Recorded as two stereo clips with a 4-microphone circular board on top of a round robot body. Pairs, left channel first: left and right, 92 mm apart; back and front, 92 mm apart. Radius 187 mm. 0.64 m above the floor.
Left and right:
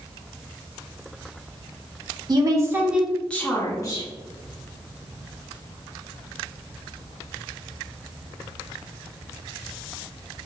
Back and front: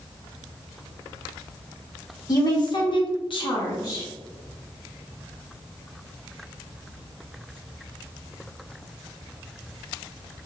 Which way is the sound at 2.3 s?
130° right.